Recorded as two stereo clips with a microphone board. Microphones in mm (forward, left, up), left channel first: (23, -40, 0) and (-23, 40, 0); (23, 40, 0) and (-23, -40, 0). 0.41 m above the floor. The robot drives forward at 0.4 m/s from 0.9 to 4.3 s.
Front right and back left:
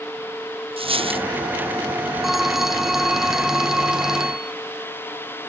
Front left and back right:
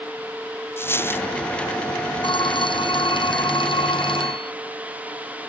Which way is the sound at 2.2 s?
35° left.